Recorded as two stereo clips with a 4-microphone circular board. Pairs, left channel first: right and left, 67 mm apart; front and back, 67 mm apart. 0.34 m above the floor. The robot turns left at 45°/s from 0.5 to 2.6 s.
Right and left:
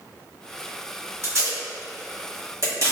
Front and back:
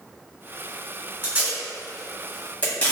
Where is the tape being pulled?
125° left, 1.3 m; by 2.9 s 65° left, 1.3 m.